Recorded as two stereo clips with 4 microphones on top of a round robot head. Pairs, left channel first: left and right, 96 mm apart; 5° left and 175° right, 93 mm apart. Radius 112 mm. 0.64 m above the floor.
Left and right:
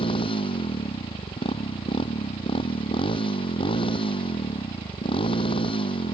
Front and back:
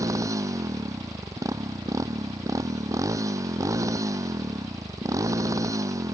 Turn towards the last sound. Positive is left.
turn(degrees=130)